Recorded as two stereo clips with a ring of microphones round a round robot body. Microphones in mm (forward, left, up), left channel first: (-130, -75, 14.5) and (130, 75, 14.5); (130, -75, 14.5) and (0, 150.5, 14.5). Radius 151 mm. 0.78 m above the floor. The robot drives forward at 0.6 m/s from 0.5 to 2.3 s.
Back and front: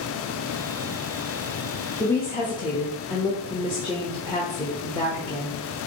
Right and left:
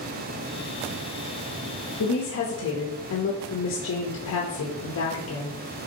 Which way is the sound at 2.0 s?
65° right.